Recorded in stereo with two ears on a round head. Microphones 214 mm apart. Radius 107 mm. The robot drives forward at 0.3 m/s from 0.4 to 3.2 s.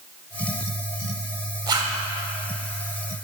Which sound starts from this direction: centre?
A zipper, at 1.7 s.